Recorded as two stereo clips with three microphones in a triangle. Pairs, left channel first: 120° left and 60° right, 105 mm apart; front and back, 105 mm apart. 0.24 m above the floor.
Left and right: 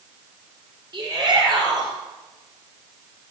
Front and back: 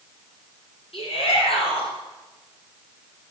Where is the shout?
10° right, 5.5 m.